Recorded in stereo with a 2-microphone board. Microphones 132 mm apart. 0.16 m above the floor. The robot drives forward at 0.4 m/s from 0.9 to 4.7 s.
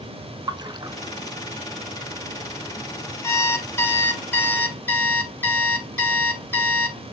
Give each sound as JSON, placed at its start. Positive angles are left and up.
{"t": 0.5, "sound": "a splash", "side_deg": -35, "distance_m": 0.6}
{"t": 3.2, "sound": "an alarm clock", "side_deg": 20, "distance_m": 1.1}